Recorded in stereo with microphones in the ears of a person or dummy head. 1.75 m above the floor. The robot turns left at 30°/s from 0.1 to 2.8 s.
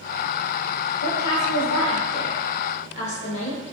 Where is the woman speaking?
90° left, 0.8 m; by 3.7 s 40° left, 0.8 m.